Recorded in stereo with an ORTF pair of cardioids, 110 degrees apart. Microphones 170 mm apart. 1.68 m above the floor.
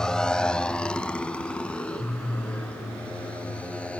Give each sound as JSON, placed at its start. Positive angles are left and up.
{"t": 0.0, "sound": "a motorcycle", "azimuth_deg": 5}